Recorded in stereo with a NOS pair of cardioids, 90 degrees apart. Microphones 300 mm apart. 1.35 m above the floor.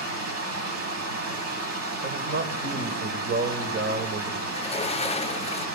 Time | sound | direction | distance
0.0 | running water | 55° right | 8 m
2.0 | a man speaking | 40° right | 4.5 m
4.5 | a sliding door | 20° left | 0.8 m